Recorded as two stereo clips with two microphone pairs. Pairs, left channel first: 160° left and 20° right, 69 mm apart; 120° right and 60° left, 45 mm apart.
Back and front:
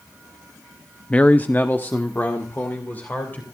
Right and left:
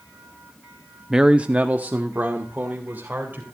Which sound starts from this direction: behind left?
A man speaking, at 1.1 s.